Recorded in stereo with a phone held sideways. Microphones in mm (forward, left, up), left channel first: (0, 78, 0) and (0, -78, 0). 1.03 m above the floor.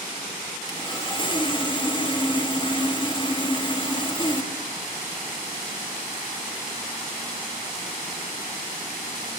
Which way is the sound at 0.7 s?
30° left (ahead or behind).